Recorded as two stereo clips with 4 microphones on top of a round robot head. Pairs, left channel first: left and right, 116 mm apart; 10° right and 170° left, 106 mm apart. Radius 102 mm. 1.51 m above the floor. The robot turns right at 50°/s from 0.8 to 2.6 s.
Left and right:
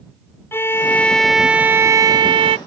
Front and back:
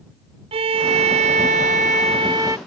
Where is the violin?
155° left; by 2.6 s 115° right.